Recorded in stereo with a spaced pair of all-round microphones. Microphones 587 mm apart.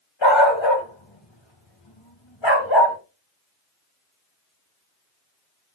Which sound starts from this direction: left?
A dog barking, at 0.2 s.